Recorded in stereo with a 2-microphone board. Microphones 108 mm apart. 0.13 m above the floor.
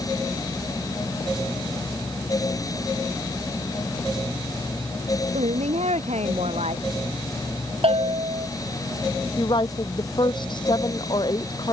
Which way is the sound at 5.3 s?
80° right.